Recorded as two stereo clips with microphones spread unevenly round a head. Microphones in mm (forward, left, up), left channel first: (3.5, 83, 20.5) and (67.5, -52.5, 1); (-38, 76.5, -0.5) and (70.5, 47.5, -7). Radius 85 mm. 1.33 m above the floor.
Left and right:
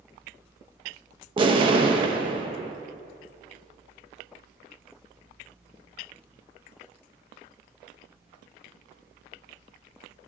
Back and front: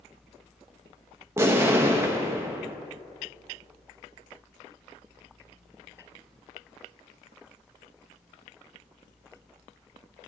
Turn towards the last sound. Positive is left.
turn(degrees=-60)